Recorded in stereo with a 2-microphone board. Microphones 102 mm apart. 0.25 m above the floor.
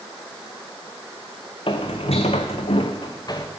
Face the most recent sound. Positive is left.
turn(degrees=35)  # may be behind; listen again after turning